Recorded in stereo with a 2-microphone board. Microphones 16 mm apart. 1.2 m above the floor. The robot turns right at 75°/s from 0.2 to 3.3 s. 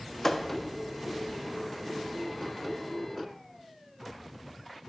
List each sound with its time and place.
0.2 s a thud: 20° left (ahead or behind), 0.6 m; by 0.5 s 25° left (ahead or behind), 0.6 m